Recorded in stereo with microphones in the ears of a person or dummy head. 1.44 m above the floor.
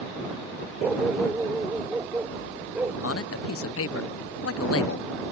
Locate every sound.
0.8 s a dog barking: centre (ahead or behind); by 2.9 s 5° right (ahead or behind)
3.0 s a man speaking: 75° left (ahead or behind)